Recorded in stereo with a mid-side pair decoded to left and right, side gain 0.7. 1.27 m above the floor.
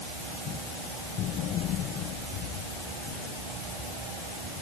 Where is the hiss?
No hiss in this recording.